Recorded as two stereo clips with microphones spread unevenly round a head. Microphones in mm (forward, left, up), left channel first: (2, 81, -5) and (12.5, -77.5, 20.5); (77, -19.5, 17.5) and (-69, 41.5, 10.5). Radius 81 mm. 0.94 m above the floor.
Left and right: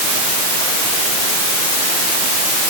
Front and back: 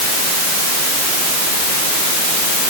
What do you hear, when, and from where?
Only background noise.